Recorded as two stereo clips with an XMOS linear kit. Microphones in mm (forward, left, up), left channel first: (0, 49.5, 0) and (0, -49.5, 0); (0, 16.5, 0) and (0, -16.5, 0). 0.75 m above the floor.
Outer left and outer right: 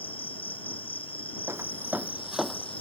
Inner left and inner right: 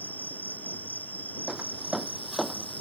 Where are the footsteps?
30° right (ahead or behind); by 2.8 s 10° left (ahead or behind).